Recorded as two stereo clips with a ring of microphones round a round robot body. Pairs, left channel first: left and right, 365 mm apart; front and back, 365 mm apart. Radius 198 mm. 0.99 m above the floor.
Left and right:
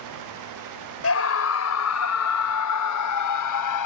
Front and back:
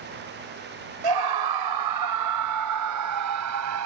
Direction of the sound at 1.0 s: 140° left.